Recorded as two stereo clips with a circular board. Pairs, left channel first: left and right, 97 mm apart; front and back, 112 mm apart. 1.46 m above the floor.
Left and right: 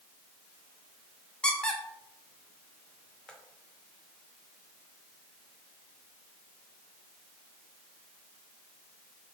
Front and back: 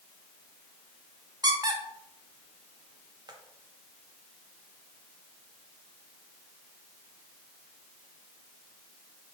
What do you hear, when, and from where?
1.4 s a squeak: 165° left, 0.5 m